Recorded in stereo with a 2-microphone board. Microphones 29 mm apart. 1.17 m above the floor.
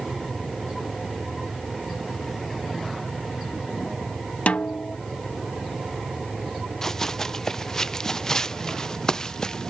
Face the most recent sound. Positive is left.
turn(degrees=20)  # may be behind; listen again after turning